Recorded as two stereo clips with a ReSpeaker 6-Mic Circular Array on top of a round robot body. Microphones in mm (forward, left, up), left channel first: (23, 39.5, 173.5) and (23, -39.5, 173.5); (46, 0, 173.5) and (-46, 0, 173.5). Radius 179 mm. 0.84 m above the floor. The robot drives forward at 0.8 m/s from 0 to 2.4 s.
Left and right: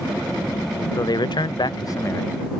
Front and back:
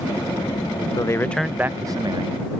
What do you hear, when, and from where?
1.0 s a man speaking: 50° left; by 2.4 s 150° left